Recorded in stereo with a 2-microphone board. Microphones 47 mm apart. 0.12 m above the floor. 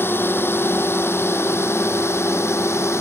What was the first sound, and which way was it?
A drone, 50° left (ahead or behind).